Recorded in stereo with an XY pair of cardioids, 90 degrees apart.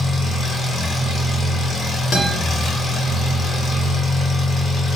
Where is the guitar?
60° left, 0.8 m.